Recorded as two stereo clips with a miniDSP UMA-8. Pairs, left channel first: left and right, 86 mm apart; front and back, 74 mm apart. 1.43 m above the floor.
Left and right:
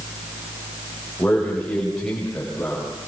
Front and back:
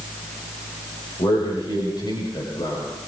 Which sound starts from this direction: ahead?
A man speaking, at 1.2 s.